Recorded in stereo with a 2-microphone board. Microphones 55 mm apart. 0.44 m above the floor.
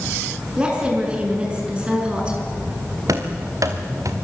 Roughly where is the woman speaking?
Right.